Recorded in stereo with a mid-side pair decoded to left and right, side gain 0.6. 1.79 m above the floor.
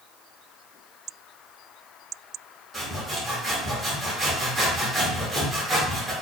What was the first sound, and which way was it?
Sawing, 20° right.